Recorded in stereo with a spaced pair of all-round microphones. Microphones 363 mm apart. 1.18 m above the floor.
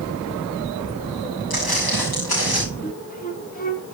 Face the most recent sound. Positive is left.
turn(degrees=20)  # may be behind; listen again after turning